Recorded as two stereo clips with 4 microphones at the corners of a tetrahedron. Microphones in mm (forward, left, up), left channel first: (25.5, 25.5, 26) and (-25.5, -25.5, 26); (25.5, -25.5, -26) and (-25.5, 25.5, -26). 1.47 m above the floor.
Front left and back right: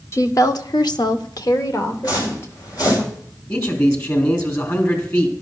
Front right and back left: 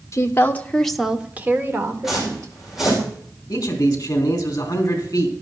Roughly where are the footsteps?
Ahead left.